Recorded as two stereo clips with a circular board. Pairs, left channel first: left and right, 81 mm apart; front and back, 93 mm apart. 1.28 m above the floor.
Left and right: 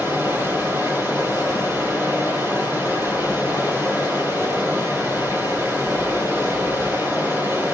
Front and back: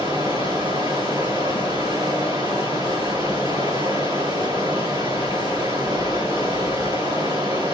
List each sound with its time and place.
0.0 s running water: 140° right, 3.5 m